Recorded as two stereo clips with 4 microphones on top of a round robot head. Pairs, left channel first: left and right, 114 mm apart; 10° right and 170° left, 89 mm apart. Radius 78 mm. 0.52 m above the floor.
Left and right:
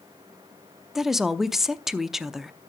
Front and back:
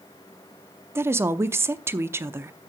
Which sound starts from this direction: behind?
A woman speaking, at 0.9 s.